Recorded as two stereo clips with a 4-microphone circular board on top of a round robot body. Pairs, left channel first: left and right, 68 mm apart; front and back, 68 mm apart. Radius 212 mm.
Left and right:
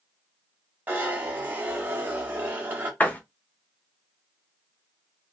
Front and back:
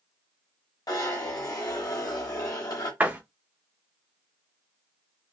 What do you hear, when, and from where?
0.9 s a zipper: 25° right, 1.2 m
3.0 s a door slam: 135° left, 1.1 m